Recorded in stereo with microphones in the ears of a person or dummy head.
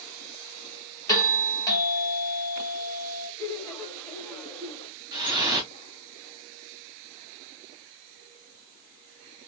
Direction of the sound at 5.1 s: 20° right (ahead or behind).